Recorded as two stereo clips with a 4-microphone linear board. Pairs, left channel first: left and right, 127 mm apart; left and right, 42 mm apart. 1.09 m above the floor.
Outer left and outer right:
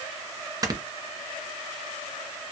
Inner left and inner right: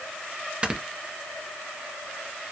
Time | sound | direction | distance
0.6 | snoring | 30° right (ahead or behind) | 0.9 m